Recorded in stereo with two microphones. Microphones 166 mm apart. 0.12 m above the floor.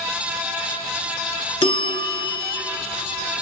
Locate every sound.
1.6 s a bell: 30° left (ahead or behind), 0.5 m